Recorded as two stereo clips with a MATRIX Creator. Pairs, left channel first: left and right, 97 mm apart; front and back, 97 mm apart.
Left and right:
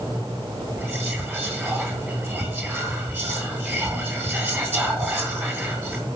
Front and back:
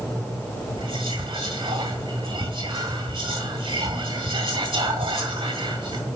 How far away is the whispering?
About 2.5 m.